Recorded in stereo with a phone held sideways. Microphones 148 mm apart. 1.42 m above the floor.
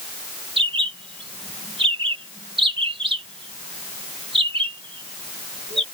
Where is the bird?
35° right (ahead or behind).